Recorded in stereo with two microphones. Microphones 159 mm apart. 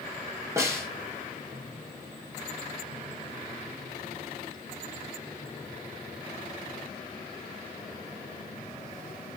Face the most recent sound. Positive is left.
turn(degrees=-20)  # may be behind; listen again after turning